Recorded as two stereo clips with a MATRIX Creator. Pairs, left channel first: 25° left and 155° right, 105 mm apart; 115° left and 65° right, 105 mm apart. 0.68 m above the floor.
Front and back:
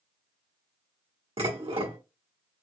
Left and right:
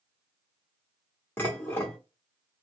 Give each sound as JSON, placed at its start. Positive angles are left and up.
{"t": 1.4, "sound": "dishes clattering", "azimuth_deg": 180, "distance_m": 1.2}